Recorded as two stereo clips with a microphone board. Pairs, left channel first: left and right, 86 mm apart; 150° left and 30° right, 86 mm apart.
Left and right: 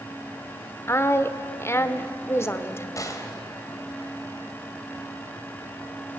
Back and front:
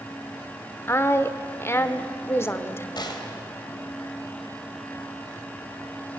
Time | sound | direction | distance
0.9 | a woman speaking | 120° left | 1.3 m
3.0 | a gunshot | 135° left | 2.5 m